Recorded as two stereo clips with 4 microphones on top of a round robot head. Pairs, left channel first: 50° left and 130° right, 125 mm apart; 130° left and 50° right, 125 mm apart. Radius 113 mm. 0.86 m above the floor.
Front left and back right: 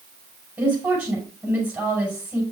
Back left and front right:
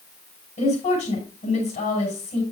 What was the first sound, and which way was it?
A woman speaking, 160° left.